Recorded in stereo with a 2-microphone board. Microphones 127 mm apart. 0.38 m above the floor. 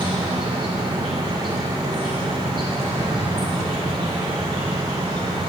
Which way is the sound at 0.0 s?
40° right (ahead or behind).